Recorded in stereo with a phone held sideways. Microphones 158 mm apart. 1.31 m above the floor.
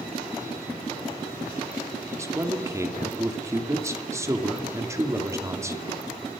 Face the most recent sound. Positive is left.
turn(degrees=-20)  # may be behind; listen again after turning